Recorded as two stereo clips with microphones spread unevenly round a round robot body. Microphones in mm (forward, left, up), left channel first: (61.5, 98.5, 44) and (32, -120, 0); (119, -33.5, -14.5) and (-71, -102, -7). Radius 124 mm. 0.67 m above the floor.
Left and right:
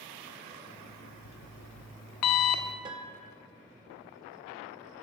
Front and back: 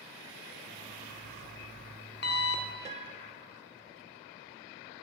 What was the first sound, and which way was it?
An alarm clock, 70° left.